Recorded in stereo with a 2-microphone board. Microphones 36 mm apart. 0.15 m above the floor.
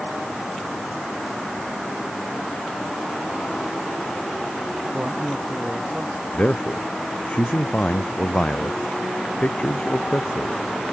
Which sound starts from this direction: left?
A man speaking, at 6.3 s.